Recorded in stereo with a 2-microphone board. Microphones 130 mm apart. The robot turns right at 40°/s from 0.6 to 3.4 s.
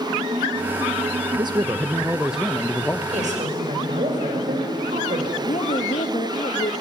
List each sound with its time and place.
1.4 s a man speaking: 45° right, 0.7 m; by 3.0 s 20° left, 0.7 m
3.1 s a woman speaking: 60° right (ahead or behind), 5.5 m; by 5.3 s 75° right (ahead or behind), 5.5 m
5.4 s a woman speaking: 65° left (ahead or behind), 1.8 m